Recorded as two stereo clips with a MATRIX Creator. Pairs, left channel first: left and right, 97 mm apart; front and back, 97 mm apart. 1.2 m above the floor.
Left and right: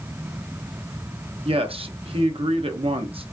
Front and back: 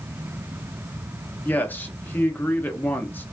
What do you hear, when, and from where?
1.4 s a man speaking: 70° right, 0.7 m